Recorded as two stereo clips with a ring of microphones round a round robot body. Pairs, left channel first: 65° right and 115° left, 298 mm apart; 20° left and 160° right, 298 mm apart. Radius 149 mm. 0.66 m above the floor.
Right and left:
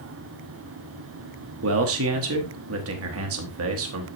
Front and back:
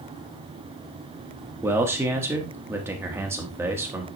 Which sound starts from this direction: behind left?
A man speaking, at 1.6 s.